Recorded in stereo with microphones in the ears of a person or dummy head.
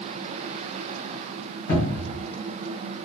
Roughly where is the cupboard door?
Left.